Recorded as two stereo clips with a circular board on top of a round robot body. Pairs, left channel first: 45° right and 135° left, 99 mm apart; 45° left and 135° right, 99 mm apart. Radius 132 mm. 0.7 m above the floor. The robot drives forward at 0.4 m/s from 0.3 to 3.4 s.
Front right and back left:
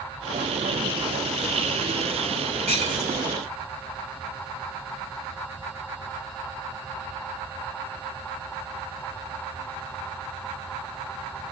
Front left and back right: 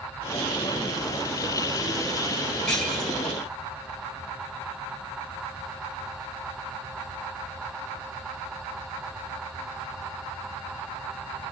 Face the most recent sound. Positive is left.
turn(degrees=130)